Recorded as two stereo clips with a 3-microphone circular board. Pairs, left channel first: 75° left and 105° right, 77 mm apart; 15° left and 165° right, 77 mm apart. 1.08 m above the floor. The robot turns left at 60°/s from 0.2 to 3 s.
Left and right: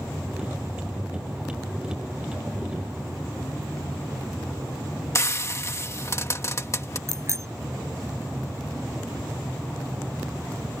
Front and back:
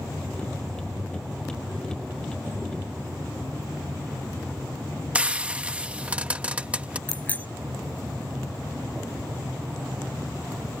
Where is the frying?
125° left.